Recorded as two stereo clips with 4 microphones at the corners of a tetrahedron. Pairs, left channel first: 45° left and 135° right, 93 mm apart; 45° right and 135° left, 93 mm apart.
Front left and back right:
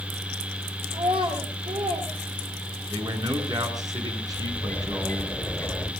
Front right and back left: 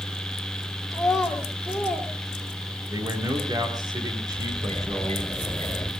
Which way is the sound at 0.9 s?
135° right.